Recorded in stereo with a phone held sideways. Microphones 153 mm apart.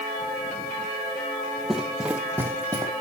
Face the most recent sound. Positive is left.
turn(degrees=-20)  # may be behind; listen again after turning